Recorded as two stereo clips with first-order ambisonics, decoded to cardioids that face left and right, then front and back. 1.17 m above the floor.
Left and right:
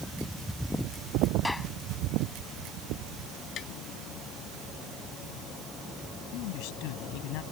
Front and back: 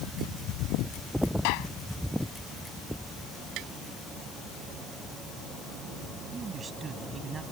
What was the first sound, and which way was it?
A gunshot, 5° left.